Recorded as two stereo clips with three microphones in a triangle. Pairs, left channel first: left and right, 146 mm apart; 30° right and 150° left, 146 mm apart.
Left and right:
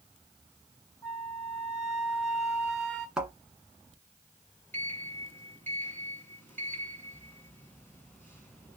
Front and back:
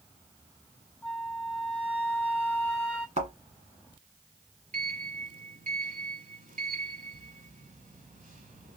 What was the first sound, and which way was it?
A flute, 40° left.